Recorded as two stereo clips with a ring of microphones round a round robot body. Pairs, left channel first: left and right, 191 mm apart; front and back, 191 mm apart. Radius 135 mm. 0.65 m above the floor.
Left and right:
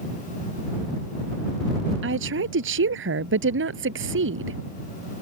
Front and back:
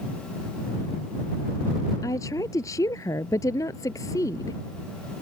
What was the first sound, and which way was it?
A woman speaking, 80° right.